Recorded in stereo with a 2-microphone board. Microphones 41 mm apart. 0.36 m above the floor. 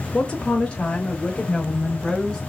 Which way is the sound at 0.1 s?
25° left (ahead or behind).